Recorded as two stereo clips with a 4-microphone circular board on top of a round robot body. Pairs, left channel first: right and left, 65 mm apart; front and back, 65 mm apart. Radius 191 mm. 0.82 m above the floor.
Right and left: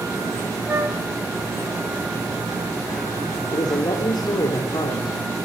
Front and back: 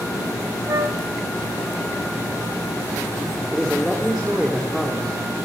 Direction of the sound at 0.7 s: 145° left.